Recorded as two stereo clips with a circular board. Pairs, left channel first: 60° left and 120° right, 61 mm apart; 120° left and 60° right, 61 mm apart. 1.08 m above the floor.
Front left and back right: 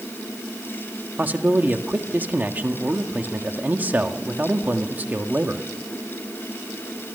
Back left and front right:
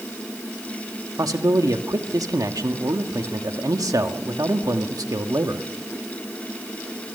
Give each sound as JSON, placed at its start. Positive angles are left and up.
{"t": 1.2, "sound": "a man speaking", "azimuth_deg": -60, "distance_m": 1.7}